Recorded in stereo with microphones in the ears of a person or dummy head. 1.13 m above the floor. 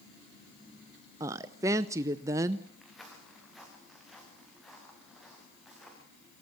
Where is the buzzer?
No buzzer in this recording.